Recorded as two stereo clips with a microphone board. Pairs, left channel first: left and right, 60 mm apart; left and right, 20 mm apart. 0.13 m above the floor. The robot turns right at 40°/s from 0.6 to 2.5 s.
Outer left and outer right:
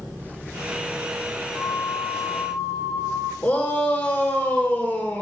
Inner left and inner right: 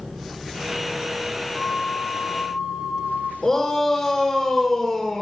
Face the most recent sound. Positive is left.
turn(degrees=25)  # may be behind; listen again after turning